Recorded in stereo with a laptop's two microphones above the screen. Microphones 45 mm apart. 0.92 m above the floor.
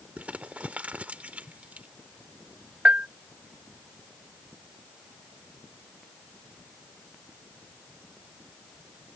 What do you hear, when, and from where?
0.2 s crumpling: 30° right (ahead or behind)
2.9 s a bell: 35° right (ahead or behind)